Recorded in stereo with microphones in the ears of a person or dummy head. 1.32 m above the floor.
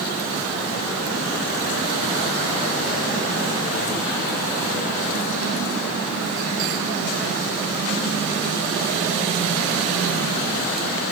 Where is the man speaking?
No man speaking in this recording.